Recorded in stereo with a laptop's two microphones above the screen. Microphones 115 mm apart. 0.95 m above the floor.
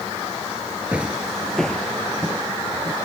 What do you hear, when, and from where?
0.9 s footsteps: 10° right (ahead or behind); by 3.0 s 10° left (ahead or behind)